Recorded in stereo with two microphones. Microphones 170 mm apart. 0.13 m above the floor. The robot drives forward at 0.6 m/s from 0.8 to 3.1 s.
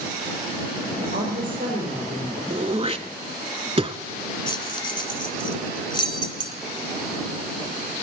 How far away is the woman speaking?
About 5 m.